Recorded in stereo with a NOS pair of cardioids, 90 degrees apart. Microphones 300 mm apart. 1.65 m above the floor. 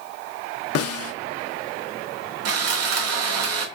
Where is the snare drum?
55° left, 0.6 m.